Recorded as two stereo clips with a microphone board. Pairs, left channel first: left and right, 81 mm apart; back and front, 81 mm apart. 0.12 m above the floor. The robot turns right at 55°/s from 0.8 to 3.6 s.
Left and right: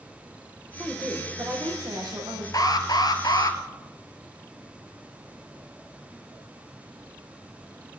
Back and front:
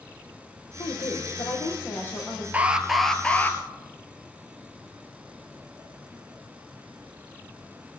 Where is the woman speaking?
175° left, 5.5 m; by 2.4 s 95° right, 5.5 m.